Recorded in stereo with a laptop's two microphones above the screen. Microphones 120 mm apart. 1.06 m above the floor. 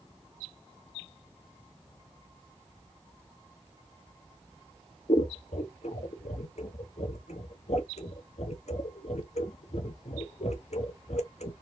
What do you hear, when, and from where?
5.1 s scissors: 70° left (ahead or behind), 1.0 m